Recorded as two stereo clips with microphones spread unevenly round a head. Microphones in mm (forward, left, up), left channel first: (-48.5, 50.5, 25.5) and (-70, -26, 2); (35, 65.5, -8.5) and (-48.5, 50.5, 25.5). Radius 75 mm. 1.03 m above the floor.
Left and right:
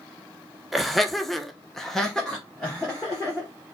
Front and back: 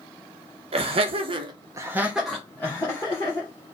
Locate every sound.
0.7 s laughter: straight behind, 0.7 m; by 3.5 s 20° right, 1.0 m